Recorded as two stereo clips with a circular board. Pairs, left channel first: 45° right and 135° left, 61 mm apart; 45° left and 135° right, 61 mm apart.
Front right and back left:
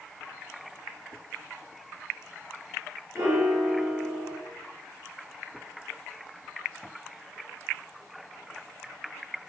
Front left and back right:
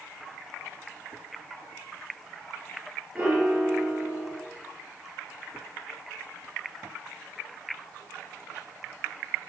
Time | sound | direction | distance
3.1 | a piano | 165° left | 3.5 m